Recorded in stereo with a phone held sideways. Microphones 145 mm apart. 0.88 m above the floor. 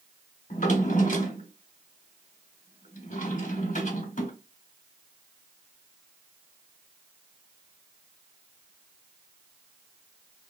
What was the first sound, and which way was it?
A drawer, 60° left (ahead or behind).